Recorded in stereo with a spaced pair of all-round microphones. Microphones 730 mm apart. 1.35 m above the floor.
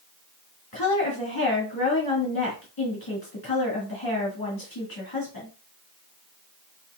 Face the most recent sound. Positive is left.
turn(degrees=30)  # may be behind; listen again after turning